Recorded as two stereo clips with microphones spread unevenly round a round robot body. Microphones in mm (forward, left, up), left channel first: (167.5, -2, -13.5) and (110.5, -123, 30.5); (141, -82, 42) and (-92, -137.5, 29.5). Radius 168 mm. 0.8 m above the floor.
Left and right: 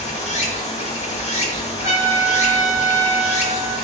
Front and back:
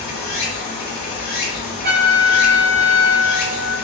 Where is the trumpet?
125° left, 1.1 m.